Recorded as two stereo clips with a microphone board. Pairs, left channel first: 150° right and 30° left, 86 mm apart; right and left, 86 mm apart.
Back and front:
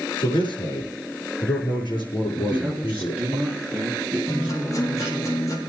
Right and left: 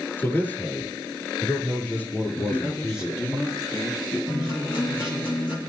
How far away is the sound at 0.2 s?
About 6.5 m.